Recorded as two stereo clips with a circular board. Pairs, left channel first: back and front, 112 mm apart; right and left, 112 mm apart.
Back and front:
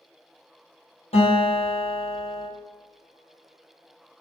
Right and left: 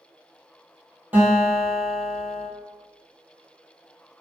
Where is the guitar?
165° left, 1.3 m.